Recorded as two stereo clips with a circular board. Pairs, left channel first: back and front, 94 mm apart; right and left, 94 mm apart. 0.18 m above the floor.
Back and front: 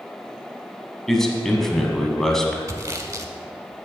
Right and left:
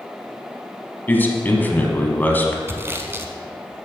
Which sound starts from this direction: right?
A man speaking, at 1.1 s.